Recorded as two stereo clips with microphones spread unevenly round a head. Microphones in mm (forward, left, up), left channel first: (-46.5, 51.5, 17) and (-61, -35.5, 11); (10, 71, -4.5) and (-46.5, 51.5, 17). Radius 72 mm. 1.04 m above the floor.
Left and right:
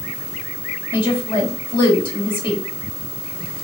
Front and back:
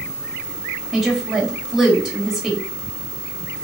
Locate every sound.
0.9 s a woman speaking: 105° left, 1.8 m